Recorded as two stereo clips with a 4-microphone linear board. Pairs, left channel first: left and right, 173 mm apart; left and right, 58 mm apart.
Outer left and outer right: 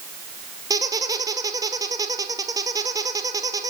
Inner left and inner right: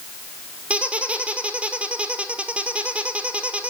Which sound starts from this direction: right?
A squeak, at 0.7 s.